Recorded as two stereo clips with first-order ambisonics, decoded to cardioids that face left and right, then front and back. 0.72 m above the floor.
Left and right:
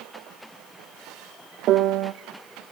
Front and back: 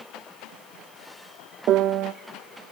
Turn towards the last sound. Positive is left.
turn(degrees=-135)